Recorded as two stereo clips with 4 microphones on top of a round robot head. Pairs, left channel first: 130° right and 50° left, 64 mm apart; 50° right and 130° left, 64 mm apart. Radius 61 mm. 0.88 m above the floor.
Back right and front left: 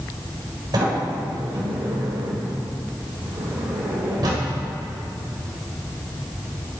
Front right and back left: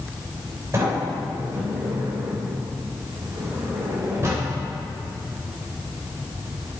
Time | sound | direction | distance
0.7 | a sliding door | 75° left | 3 m